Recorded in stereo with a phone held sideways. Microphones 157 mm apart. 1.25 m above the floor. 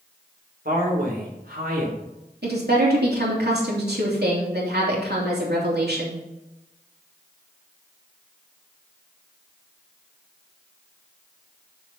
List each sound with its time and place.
0.7 s a man speaking: 65° right (ahead or behind), 4 m
2.4 s a woman speaking: 80° right, 3 m